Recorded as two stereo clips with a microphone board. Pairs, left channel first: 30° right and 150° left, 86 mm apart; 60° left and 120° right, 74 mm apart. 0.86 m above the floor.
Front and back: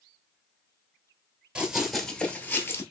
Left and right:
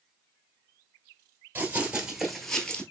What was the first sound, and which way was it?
Running footsteps, 145° right.